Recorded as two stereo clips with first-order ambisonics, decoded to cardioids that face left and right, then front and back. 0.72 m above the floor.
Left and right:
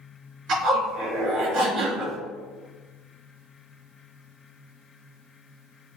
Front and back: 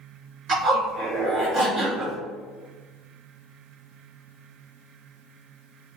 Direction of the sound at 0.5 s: 135° right.